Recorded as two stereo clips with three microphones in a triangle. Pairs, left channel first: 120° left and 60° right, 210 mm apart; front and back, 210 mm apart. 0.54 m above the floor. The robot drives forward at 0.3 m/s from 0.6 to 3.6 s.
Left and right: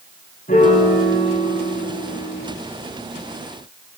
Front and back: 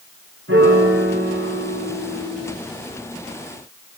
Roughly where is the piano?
Behind.